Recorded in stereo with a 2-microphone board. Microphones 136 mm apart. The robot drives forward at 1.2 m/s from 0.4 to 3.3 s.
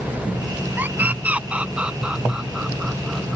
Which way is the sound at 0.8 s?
15° right (ahead or behind).